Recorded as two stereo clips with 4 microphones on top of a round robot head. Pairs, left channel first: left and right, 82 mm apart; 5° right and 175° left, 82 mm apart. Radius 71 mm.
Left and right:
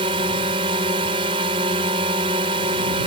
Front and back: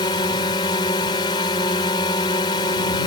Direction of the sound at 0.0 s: 55° right.